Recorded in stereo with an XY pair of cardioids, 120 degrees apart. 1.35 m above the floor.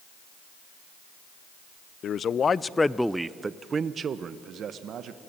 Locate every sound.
2.0 s a man speaking: 50° left, 0.7 m; by 5.2 s 60° right, 1.4 m